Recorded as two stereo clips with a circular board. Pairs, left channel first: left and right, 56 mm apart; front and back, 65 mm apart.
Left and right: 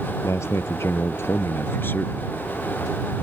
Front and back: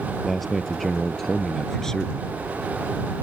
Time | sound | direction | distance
0.2 | a man speaking | 90° left | ?